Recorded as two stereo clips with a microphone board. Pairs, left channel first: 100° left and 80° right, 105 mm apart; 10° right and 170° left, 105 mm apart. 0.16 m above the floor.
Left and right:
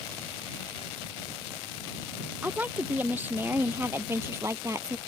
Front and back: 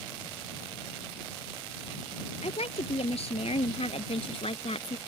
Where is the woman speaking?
5° right; by 5.0 s 20° right.